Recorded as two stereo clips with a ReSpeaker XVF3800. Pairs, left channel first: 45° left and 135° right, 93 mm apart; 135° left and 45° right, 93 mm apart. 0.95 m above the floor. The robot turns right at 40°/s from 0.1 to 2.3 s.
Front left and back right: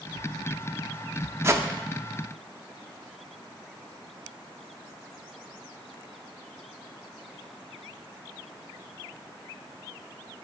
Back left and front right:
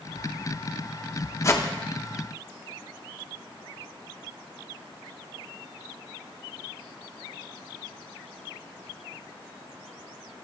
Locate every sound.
1.4 s a whoosh: 175° left, 0.5 m; by 1.6 s 175° right, 0.5 m